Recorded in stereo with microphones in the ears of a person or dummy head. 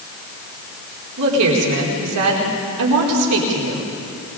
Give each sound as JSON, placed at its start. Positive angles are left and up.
{"t": 1.2, "sound": "a woman speaking", "side_deg": -85, "distance_m": 4.5}